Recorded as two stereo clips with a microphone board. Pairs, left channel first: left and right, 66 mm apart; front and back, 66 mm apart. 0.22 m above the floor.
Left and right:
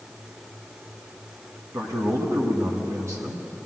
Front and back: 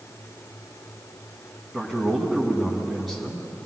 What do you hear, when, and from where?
1.7 s a man speaking: 90° right, 2.5 m